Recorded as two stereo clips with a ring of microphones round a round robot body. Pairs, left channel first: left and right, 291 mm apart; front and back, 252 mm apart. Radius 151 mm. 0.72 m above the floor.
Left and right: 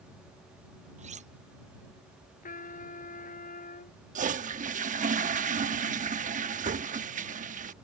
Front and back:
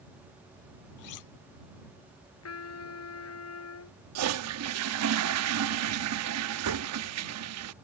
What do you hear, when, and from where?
1.0 s cutlery clinking: 20° right
2.4 s a trumpet: 25° left
4.2 s a toilet flushing: 155° right